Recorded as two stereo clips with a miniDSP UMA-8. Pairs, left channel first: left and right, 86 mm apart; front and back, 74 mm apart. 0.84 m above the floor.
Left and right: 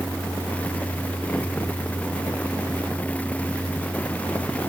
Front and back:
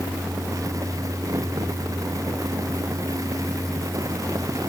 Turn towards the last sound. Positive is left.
No sound to turn to.